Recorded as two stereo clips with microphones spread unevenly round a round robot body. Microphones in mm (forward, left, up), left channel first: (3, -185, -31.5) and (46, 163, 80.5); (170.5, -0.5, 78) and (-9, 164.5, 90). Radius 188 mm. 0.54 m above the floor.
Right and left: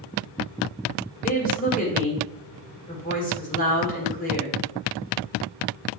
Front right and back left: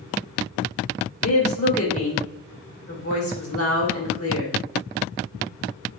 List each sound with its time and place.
1.2 s a woman speaking: 40° right, 3 m